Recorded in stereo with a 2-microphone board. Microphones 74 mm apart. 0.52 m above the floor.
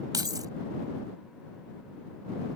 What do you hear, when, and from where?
0.1 s keys jangling: 60° right (ahead or behind)